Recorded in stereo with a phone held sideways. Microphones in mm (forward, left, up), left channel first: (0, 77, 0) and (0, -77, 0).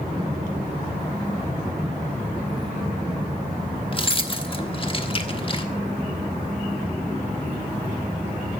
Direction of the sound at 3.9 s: 35° left (ahead or behind).